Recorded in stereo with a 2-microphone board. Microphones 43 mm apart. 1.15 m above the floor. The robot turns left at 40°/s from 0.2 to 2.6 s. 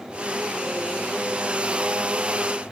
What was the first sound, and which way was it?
Only background noise.